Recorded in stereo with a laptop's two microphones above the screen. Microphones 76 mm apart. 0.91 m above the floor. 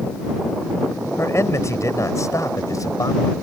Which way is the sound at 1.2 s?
40° left (ahead or behind).